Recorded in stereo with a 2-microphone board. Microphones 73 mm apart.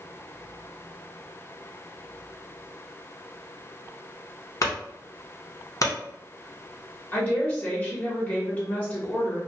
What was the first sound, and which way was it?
A clunk, 50° left (ahead or behind).